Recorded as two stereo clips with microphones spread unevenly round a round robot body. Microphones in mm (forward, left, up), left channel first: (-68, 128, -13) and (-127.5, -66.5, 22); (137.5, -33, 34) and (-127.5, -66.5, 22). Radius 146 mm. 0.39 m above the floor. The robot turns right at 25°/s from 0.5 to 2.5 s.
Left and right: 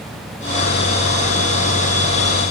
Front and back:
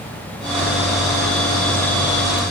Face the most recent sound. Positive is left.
No sound to turn to.